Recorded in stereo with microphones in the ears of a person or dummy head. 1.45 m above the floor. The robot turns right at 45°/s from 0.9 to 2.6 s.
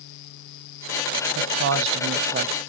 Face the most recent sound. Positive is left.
turn(degrees=-40)